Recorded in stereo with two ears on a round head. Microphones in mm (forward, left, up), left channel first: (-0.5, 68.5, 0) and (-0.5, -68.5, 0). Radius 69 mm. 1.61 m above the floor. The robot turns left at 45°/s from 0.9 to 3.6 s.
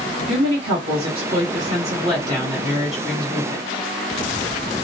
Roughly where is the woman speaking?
Right.